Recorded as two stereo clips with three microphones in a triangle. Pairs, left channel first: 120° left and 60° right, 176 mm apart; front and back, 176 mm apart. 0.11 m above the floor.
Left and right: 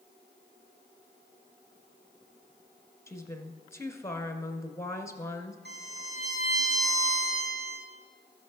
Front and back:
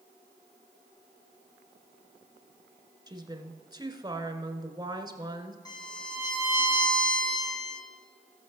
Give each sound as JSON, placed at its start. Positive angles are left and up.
{"t": 3.1, "sound": "a woman speaking", "azimuth_deg": 165, "distance_m": 1.1}
{"t": 5.7, "sound": "a violin", "azimuth_deg": -70, "distance_m": 3.5}